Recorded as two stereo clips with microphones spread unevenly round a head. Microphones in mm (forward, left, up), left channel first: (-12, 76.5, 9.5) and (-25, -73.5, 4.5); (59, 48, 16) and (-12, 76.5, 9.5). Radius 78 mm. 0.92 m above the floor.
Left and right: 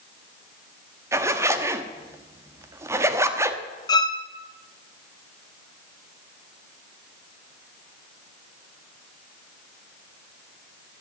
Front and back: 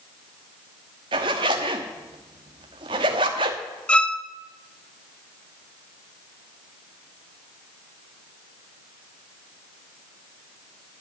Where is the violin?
40° left, 0.8 m.